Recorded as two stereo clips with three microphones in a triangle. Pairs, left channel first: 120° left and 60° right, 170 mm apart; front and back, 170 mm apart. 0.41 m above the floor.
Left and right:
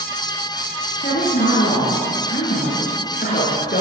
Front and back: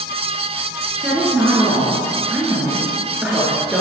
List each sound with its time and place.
1.0 s a woman speaking: 95° left, 5.5 m